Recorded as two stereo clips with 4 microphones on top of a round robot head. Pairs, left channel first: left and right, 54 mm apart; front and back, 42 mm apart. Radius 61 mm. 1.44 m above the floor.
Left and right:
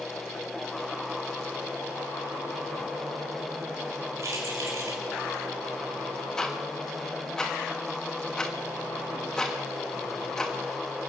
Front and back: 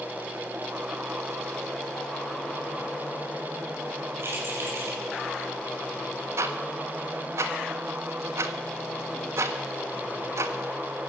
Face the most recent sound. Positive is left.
turn(degrees=170)